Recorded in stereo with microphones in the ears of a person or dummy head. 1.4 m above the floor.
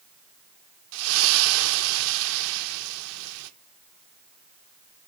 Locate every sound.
0.9 s a splash: 75° right (ahead or behind), 1.0 m